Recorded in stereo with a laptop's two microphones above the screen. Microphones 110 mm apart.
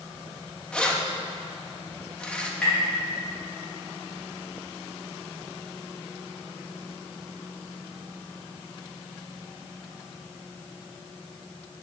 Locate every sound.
0.7 s keys jangling: 10° left (ahead or behind), 0.8 m
2.6 s tapping: 10° left (ahead or behind), 3.5 m